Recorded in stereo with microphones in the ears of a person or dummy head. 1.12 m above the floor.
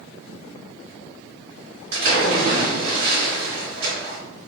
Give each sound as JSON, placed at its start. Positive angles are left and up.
{"t": 1.9, "sound": "a splash", "side_deg": -55, "distance_m": 1.6}